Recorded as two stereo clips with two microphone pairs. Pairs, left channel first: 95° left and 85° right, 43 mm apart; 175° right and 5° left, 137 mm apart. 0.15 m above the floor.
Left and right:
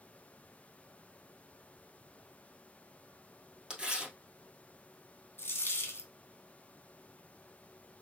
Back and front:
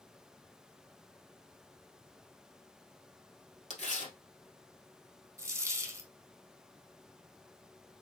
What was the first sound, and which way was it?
Tearing paper, 155° right.